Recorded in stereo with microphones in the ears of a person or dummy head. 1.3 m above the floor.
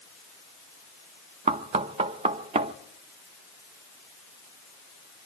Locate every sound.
1.5 s knocking: 30° right (ahead or behind), 0.6 m